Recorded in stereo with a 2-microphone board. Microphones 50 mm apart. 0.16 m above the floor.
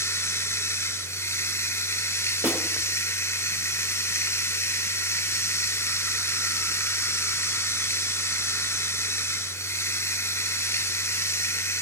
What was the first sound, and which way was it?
Running water, 65° left (ahead or behind).